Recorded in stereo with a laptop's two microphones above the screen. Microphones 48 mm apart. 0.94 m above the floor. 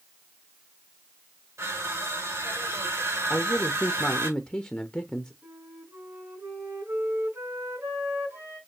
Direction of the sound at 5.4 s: 70° right (ahead or behind).